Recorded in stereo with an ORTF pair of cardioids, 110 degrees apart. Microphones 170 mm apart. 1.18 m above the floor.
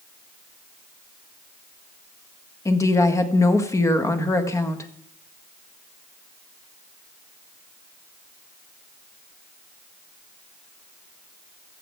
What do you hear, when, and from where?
2.6 s a woman speaking: 20° left, 1.5 m